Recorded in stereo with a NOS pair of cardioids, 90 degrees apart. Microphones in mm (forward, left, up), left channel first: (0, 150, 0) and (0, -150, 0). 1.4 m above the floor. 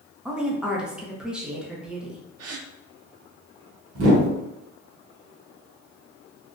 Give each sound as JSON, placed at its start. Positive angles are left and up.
{"t": 0.2, "sound": "a woman speaking", "azimuth_deg": -5, "distance_m": 0.9}
{"t": 2.4, "sound": "a gasp", "azimuth_deg": -55, "distance_m": 0.7}
{"t": 4.0, "sound": "a whoosh", "azimuth_deg": -50, "distance_m": 1.3}